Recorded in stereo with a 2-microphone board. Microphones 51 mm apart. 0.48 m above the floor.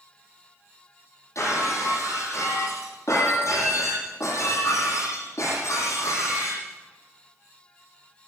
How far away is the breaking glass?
About 9.5 m.